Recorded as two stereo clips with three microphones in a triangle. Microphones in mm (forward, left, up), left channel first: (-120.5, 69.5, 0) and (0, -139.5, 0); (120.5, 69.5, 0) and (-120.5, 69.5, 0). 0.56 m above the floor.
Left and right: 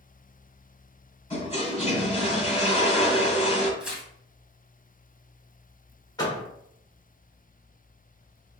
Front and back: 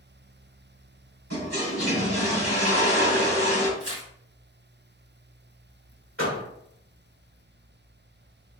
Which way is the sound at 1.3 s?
175° right.